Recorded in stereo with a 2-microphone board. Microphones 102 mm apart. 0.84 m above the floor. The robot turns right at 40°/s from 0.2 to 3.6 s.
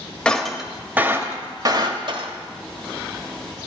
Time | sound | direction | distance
0.2 | breaking glass | 10° left (ahead or behind) | 1.1 m